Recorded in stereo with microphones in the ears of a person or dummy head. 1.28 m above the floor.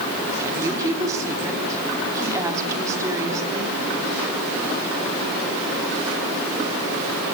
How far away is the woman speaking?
About 3.5 m.